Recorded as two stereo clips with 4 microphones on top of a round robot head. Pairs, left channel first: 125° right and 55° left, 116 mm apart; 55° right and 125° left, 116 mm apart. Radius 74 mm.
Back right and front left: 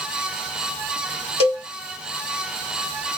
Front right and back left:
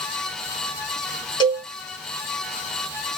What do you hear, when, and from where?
1.4 s a cowbell: 95° right, 1.8 m